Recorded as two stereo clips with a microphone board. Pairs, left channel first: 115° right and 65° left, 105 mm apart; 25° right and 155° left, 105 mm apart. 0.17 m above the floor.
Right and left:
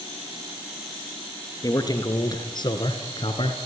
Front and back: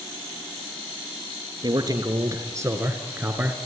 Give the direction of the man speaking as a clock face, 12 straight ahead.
5 o'clock.